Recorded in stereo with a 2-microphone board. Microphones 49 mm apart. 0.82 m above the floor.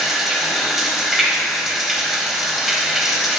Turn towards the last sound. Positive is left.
turn(degrees=-5)  # may be behind; listen again after turning